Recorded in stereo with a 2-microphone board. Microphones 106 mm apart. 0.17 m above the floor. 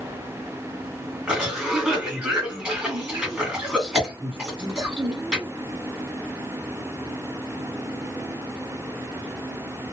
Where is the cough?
Centre (ahead or behind), 1.8 m.